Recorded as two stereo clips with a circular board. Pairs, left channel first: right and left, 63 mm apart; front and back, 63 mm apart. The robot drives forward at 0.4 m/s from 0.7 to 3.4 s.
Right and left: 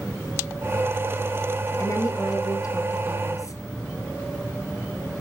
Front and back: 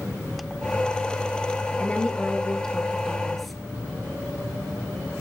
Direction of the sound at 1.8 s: 70° right.